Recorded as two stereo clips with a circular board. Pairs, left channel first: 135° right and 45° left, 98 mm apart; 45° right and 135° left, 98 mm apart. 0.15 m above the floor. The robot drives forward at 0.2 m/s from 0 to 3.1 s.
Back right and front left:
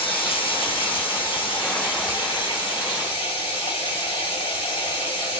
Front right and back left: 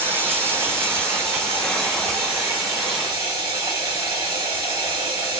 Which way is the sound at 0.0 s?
160° right.